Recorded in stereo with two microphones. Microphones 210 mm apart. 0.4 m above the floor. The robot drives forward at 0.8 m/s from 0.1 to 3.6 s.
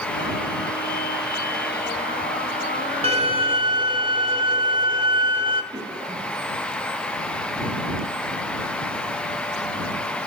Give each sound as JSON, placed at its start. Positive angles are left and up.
{"t": 3.0, "sound": "a violin", "side_deg": -30, "distance_m": 1.5}
{"t": 5.7, "sound": "a cough", "side_deg": -20, "distance_m": 9.0}